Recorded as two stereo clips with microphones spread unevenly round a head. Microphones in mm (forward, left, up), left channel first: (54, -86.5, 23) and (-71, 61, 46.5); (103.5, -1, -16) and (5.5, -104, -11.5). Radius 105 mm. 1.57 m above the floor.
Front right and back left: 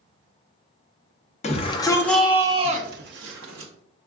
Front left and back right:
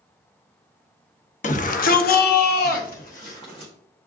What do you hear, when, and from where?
1.4 s a shout: 10° left, 0.7 m; by 3.7 s 110° left, 0.8 m